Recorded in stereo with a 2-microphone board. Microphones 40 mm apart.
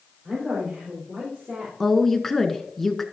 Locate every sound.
0.2 s a woman speaking: 45° right (ahead or behind), 4.5 m; by 1.7 s 30° right (ahead or behind), 4 m
1.8 s a woman speaking: 5° left (ahead or behind), 1.1 m